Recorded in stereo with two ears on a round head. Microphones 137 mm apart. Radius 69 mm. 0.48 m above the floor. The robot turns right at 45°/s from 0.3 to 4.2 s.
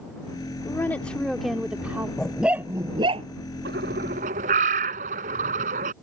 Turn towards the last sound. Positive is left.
turn(degrees=-55)  # may be behind; listen again after turning